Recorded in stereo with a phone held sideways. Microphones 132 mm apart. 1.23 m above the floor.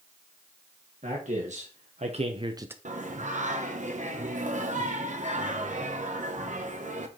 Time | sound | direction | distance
1.0 | a man speaking | 70° right (ahead or behind) | 1.8 m
2.9 | singing | 70° right (ahead or behind) | 1.0 m